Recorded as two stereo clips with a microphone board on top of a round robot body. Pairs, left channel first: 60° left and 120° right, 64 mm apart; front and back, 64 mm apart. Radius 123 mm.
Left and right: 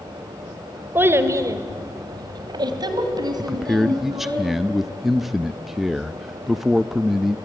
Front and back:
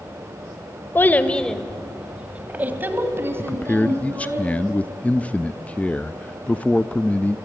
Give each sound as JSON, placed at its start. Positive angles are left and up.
{"t": 0.9, "sound": "a child speaking", "azimuth_deg": -60, "distance_m": 1.4}
{"t": 3.4, "sound": "a man speaking", "azimuth_deg": -40, "distance_m": 0.8}